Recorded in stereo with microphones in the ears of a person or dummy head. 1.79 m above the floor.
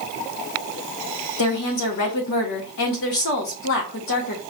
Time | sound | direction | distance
1.4 | a woman speaking | 50° left (ahead or behind) | 1.1 m